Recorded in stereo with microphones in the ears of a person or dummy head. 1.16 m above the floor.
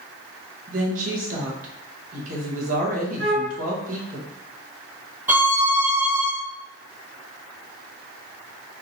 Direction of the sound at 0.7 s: 45° right (ahead or behind).